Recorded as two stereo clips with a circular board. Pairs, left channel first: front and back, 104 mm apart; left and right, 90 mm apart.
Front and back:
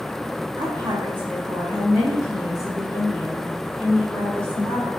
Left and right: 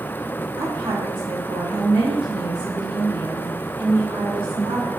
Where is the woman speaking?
120° right, 1.4 m; by 4.9 s 80° right, 3 m.